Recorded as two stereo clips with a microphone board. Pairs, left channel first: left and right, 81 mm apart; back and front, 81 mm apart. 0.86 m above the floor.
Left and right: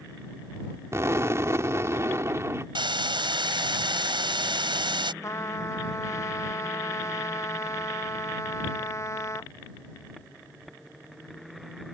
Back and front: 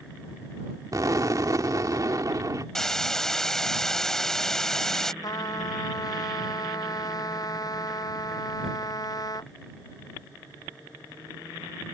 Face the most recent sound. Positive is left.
turn(degrees=140)